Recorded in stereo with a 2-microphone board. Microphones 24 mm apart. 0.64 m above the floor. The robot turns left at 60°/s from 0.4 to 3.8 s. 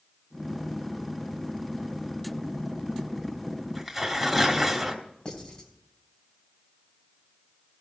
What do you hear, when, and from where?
3.8 s tearing paper: centre (ahead or behind), 1.4 m
5.2 s writing: 35° left (ahead or behind), 2.5 m